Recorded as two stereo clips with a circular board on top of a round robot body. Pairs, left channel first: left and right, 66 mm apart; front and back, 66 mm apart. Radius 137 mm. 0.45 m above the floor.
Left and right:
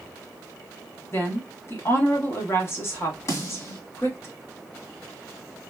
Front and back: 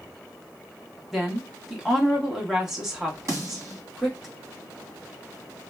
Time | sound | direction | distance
1.1 | a woman speaking | 100° left | 1.5 m
3.3 | a snare drum | 135° left | 1.8 m